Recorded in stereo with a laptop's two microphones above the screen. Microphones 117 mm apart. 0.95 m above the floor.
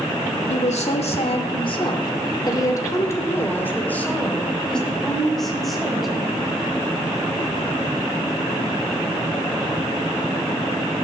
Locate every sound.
0.5 s a woman speaking: 75° left (ahead or behind), 2.5 m; by 6.7 s centre (ahead or behind), 5.5 m